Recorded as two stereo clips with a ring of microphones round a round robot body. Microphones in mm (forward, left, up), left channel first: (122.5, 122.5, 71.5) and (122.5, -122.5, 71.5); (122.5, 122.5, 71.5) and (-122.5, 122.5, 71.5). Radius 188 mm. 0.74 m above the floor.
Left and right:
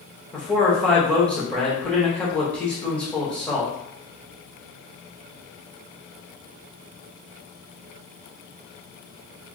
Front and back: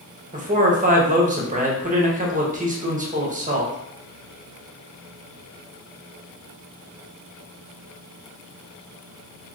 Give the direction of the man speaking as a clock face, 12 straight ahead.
6 o'clock.